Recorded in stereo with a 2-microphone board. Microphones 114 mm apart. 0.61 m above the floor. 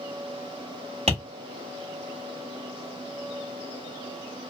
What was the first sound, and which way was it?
Tapping, 70° right (ahead or behind).